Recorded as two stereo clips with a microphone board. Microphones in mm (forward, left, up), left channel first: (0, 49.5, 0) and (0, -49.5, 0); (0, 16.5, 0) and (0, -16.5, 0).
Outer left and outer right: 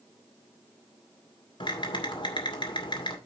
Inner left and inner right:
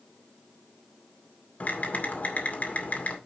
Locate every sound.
1.6 s typing on a keyboard: 55° left (ahead or behind), 2 m